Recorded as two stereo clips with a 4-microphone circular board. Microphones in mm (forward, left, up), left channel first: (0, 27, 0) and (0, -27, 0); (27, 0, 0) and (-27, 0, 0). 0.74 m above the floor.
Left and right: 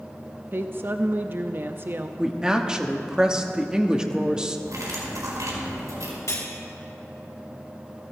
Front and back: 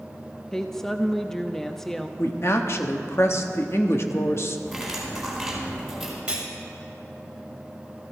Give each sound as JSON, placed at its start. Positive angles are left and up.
{"t": 0.5, "sound": "a woman speaking", "azimuth_deg": -80, "distance_m": 0.5}
{"t": 2.2, "sound": "a woman speaking", "azimuth_deg": -15, "distance_m": 1.0}
{"t": 4.7, "sound": "cutlery clinking", "azimuth_deg": -90, "distance_m": 4.5}
{"t": 6.3, "sound": "cutlery clinking", "azimuth_deg": 110, "distance_m": 2.5}